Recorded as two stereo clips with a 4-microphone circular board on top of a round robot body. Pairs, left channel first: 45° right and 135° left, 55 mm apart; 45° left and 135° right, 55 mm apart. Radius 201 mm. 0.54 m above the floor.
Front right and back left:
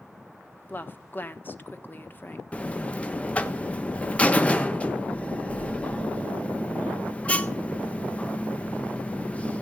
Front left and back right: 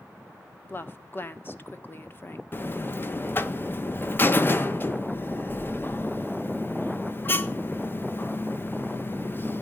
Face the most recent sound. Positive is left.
turn(degrees=15)